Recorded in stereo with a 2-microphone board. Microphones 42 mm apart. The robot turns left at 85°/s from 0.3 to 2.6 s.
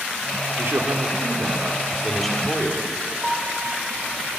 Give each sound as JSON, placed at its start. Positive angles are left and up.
{"t": 0.6, "sound": "a man speaking", "azimuth_deg": -40, "distance_m": 4.0}
{"t": 3.2, "sound": "a piano", "side_deg": -5, "distance_m": 5.5}